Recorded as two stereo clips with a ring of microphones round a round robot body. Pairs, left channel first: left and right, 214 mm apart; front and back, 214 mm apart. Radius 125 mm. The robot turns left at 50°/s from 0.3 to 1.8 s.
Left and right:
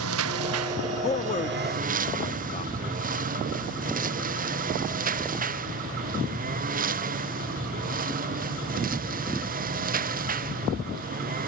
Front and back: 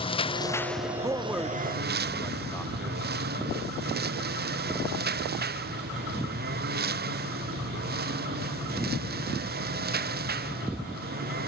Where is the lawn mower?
65° right; by 11.5 s 135° right.